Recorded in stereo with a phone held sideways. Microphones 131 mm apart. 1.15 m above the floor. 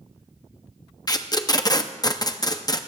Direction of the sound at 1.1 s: 30° left (ahead or behind).